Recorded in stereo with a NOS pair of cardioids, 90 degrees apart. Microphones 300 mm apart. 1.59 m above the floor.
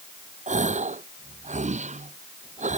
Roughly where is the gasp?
Ahead right.